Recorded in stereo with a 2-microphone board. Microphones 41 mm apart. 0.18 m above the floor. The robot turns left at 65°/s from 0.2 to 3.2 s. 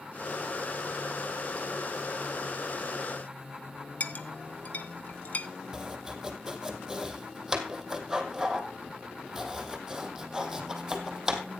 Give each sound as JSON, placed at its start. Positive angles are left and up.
{"t": 4.0, "sound": "a clink", "side_deg": 40, "distance_m": 0.8}
{"t": 5.7, "sound": "chopping", "side_deg": -10, "distance_m": 1.8}